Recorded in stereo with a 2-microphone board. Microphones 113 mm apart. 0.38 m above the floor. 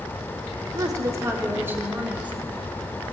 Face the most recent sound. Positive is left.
turn(degrees=-10)  # may be behind; listen again after turning